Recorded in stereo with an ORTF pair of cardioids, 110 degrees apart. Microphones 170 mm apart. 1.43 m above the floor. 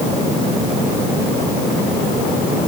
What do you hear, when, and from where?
Only background noise.